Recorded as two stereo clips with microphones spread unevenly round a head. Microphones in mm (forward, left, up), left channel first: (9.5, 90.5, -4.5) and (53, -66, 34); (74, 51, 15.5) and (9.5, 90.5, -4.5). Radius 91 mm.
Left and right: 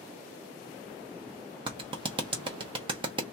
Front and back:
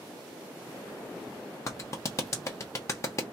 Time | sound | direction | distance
1.7 | a clap | 40° right | 0.9 m